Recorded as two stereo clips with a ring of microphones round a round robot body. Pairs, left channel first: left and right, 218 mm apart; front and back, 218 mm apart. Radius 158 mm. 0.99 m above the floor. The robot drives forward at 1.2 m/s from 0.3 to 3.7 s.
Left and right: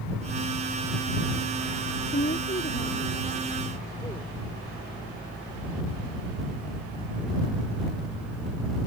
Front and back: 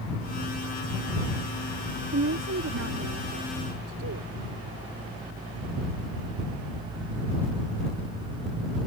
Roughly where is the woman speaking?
Behind left.